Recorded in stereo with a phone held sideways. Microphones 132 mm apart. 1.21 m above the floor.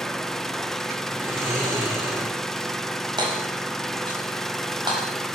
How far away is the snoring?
About 8 m.